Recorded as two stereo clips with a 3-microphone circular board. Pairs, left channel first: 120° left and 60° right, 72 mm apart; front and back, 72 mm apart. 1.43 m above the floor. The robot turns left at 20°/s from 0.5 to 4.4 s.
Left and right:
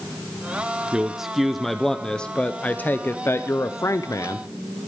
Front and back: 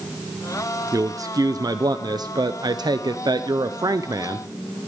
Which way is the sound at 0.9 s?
140° right.